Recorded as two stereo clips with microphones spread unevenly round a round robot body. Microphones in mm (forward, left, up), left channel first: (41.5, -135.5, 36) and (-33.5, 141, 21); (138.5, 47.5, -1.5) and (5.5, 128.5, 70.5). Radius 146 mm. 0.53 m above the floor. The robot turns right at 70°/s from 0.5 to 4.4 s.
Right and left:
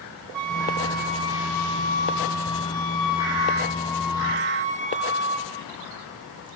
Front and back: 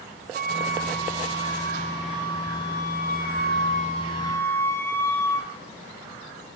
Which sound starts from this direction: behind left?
A flute, at 0.3 s.